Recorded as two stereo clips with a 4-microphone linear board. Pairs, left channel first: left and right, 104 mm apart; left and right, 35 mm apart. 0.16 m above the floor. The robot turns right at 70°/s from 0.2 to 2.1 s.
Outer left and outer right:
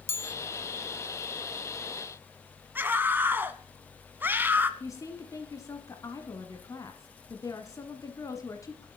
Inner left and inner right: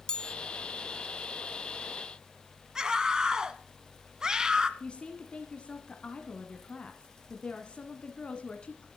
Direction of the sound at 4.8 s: 30° left (ahead or behind).